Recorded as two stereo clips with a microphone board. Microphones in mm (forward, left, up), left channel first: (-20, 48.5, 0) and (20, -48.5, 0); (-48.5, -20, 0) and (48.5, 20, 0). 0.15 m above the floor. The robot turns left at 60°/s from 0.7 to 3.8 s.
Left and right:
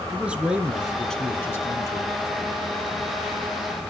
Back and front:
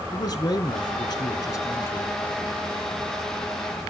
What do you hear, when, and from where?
0.1 s a man speaking: 145° right, 1.3 m; by 2.1 s 130° left, 1.3 m